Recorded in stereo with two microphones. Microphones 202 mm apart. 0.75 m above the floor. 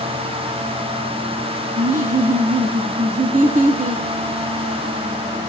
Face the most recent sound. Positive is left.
turn(degrees=-40)  # may be behind; listen again after turning